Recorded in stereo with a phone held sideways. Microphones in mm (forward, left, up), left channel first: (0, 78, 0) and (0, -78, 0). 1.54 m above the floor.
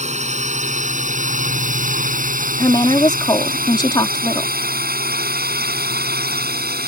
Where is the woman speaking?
30° left (ahead or behind).